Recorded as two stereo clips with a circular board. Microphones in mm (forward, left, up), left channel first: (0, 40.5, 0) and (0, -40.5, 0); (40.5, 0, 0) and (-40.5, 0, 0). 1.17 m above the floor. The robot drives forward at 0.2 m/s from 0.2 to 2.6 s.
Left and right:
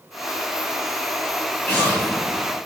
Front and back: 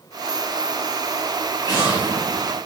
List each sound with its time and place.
1.6 s an explosion: 170° left, 1.5 m